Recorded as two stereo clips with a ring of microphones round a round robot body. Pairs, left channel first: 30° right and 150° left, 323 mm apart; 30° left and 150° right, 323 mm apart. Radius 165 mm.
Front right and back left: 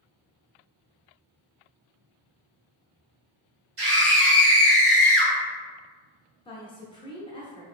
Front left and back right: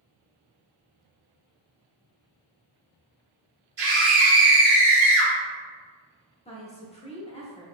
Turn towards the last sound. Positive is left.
turn(degrees=10)